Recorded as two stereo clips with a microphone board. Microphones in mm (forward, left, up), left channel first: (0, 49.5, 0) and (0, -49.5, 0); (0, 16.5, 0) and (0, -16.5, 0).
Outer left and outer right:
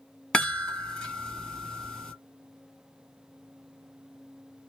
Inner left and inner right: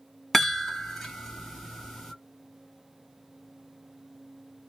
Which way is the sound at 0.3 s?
5° left (ahead or behind).